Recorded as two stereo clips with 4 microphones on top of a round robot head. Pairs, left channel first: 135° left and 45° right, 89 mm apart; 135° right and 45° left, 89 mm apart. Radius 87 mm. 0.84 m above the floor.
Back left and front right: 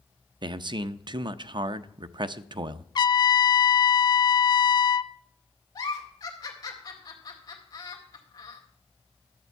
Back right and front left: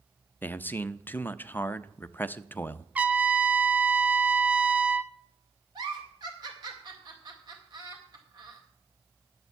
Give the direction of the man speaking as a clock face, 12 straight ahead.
2 o'clock.